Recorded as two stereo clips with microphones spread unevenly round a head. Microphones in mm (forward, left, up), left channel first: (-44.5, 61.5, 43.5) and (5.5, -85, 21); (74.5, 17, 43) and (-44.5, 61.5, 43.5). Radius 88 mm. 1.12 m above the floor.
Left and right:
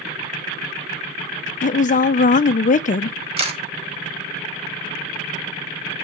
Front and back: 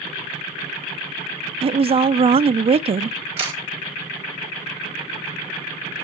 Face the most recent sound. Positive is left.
turn(degrees=-125)